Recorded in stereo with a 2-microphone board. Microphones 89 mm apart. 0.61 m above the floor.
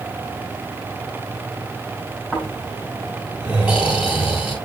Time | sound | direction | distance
2.3 | snoring | 10° right (ahead or behind) | 5 m